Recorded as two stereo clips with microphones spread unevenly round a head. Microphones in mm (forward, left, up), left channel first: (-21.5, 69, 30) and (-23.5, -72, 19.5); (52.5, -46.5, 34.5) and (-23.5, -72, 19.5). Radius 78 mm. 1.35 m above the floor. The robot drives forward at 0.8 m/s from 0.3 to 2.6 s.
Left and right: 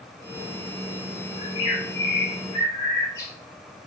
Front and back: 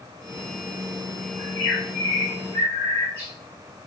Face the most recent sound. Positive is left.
turn(degrees=155)